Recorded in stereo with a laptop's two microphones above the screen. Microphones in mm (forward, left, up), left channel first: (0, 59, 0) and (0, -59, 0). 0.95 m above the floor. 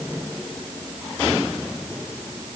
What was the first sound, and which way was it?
Only background noise.